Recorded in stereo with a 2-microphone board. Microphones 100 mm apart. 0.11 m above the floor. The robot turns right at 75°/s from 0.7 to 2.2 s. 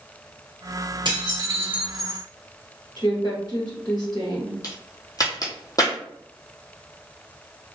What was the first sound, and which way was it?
Dishes clattering, 70° right.